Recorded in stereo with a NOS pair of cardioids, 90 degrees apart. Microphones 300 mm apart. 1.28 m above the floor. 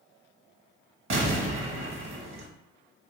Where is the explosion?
50° right, 0.9 m.